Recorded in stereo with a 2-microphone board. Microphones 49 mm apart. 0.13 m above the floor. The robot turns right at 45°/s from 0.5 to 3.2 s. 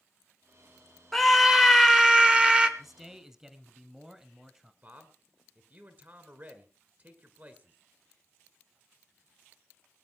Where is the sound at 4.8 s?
35° right (ahead or behind), 1.9 m.